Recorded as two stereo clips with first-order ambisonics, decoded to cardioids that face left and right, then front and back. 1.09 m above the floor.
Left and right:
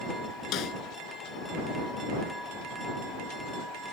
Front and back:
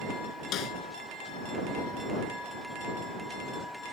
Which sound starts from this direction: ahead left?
A snare drum, at 0.5 s.